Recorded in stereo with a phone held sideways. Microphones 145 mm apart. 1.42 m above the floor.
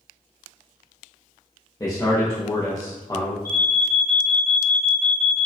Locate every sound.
1.8 s a man speaking: 25° left (ahead or behind), 0.6 m
3.5 s an alarm: 20° left (ahead or behind), 1.1 m